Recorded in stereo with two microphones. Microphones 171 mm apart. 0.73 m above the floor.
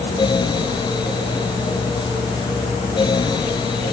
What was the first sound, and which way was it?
Only background noise.